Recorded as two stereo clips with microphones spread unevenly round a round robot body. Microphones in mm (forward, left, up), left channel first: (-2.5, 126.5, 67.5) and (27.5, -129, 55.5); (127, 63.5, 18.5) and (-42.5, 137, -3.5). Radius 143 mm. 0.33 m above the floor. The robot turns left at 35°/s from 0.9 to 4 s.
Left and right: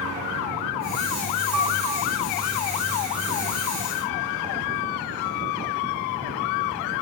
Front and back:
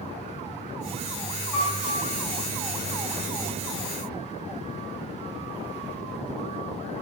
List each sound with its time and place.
1.5 s a piano: 125° right, 3 m; by 2.1 s 145° right, 3 m